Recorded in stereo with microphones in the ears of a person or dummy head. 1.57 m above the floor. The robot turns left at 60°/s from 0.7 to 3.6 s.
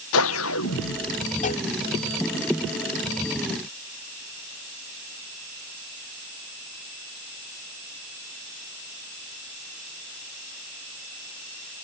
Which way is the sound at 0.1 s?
100° left.